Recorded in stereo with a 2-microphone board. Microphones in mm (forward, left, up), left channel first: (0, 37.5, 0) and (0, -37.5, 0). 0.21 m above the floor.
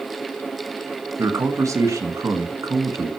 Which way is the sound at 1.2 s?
45° right (ahead or behind).